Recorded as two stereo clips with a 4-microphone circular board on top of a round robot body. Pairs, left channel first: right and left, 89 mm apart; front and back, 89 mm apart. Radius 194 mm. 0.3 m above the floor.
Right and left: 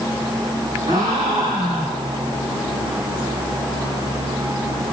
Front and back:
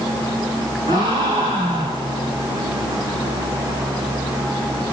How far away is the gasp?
About 7.5 m.